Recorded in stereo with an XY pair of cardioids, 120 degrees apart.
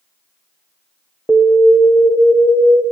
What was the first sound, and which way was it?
An alarm, 15° right.